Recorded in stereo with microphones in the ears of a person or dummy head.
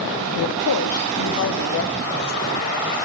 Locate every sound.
0.4 s a woman speaking: 55° left (ahead or behind), 0.7 m; by 3.0 s 50° left (ahead or behind), 3 m